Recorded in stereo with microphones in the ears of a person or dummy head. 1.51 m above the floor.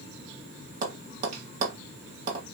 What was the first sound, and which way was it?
Tapping, 45° right (ahead or behind).